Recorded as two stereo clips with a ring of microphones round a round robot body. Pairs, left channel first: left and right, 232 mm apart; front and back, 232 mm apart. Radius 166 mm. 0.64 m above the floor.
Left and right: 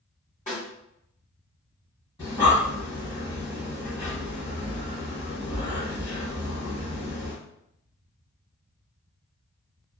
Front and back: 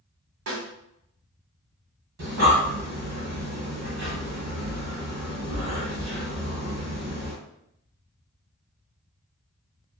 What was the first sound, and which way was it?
A snare drum, 155° left.